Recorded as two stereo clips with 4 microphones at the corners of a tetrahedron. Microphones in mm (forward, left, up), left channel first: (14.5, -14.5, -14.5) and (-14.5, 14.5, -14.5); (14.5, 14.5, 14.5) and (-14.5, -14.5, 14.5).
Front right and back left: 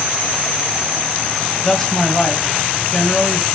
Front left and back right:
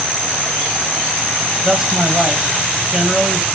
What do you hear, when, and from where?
1.6 s a man speaking: 95° right, 1.3 m